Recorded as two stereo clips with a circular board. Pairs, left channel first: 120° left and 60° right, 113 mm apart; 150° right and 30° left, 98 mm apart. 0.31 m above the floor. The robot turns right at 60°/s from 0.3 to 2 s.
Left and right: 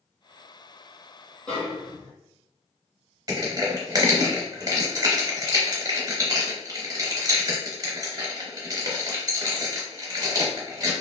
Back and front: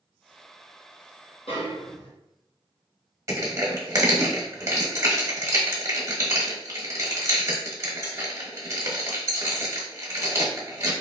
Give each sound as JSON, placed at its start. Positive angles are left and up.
{"t": 1.5, "sound": "a snare drum", "azimuth_deg": -160, "distance_m": 1.9}
{"t": 3.3, "sound": "crushing", "azimuth_deg": -20, "distance_m": 1.0}